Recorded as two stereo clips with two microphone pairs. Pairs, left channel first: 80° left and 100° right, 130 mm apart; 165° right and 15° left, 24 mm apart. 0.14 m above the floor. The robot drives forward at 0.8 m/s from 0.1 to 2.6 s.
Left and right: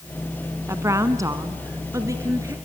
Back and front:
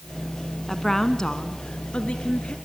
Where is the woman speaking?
90° right, 1.0 m; by 2.5 s 165° right, 1.8 m.